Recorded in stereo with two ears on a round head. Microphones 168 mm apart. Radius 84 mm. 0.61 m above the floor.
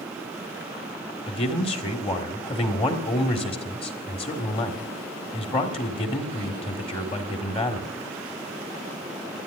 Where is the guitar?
I don't hear a guitar.